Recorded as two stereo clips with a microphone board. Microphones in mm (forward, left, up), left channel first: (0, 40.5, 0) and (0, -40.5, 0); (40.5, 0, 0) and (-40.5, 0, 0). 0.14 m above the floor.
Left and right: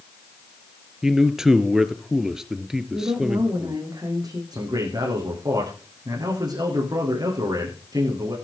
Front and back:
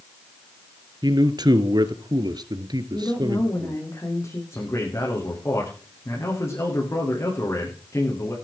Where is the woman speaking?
50° right, 9 m.